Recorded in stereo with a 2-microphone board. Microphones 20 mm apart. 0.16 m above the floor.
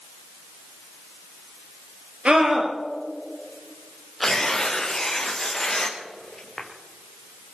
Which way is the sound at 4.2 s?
20° left (ahead or behind).